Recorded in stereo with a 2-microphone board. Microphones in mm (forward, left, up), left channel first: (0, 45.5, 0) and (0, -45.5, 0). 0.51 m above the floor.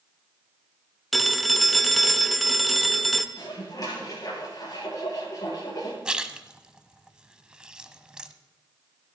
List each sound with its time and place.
1.1 s a phone ringing: centre (ahead or behind), 0.7 m
3.4 s dishes clattering: 45° left (ahead or behind), 6.5 m
6.0 s a splash: 10° right (ahead or behind), 0.7 m